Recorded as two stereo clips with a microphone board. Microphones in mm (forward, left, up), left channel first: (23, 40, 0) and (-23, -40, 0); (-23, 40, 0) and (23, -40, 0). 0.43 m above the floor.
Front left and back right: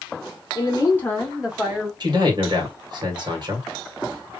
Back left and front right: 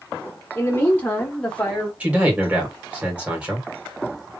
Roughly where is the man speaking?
Behind right.